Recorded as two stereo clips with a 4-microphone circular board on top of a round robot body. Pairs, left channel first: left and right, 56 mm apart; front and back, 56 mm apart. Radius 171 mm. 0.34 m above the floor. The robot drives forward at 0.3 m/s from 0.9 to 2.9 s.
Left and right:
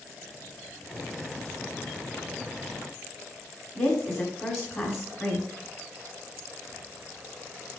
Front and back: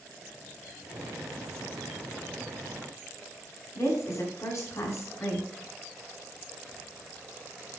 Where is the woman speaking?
40° left, 3 m.